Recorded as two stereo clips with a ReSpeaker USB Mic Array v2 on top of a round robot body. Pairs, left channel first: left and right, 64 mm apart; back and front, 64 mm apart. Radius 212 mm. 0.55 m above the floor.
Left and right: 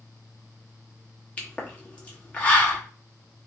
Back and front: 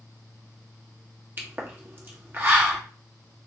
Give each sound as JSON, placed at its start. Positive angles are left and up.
{"t": 1.4, "sound": "a pop", "azimuth_deg": 35, "distance_m": 1.2}